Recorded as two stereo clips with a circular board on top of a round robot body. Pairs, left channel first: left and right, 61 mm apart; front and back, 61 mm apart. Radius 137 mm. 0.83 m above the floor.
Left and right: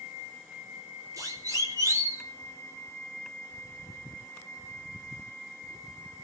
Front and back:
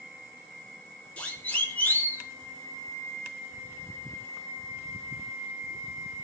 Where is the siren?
65° right, 3.5 m; by 2.2 s 55° right, 3 m.